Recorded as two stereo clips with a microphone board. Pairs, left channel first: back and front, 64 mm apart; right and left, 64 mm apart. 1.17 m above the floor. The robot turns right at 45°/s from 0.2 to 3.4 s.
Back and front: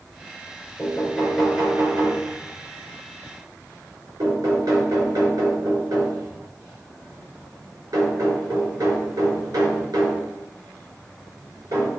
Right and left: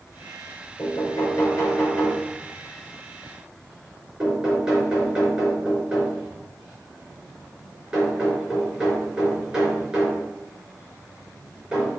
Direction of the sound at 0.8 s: 105° right.